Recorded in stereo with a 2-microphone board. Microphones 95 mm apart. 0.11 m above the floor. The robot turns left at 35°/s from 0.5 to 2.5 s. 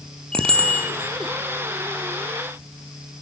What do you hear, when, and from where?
0.3 s a bicycle bell: 10° left (ahead or behind), 2.5 m; by 0.9 s 25° left (ahead or behind), 2.5 m